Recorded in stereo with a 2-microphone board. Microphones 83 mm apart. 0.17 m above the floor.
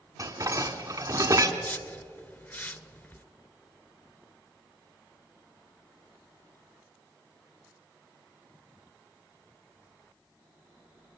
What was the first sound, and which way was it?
Dishes clattering, 45° right (ahead or behind).